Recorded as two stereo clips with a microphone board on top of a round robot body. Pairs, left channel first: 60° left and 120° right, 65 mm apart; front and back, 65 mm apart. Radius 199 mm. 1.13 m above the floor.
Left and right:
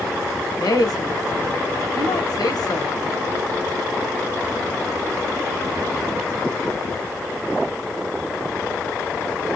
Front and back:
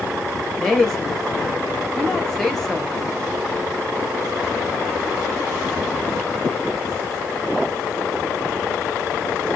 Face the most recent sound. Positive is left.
turn(degrees=85)